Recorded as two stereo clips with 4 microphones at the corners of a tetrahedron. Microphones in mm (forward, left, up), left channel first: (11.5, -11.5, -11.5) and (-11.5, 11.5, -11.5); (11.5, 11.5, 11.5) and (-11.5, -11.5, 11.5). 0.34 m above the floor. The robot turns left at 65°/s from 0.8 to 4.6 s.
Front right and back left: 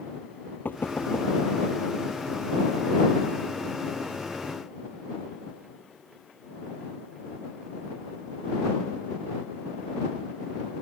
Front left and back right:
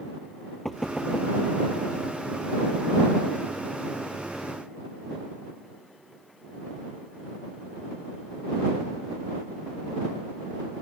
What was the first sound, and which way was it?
Knocking, 45° right.